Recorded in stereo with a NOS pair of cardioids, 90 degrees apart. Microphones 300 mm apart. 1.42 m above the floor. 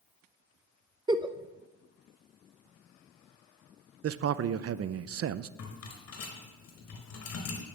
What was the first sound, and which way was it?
A giggle, 15° right.